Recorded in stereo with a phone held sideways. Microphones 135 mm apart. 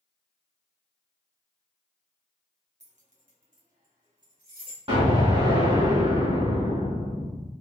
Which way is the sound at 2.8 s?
60° right (ahead or behind).